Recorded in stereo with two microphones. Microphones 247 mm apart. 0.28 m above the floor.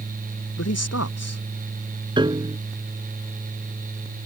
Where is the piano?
20° right (ahead or behind).